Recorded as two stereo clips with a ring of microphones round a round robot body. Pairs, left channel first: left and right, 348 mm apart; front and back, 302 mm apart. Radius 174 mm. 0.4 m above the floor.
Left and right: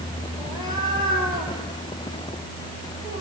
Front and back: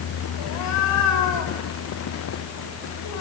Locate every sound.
0.4 s a cat meowing: 10° right, 3.5 m